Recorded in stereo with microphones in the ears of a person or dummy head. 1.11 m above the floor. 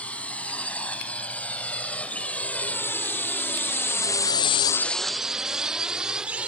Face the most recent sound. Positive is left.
turn(degrees=-5)  # may be behind; listen again after turning